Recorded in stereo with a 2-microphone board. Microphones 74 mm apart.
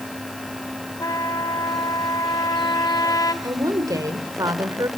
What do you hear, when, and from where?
1.0 s a trumpet: 55° left (ahead or behind), 1.7 m
3.4 s a woman speaking: 50° right (ahead or behind), 1.9 m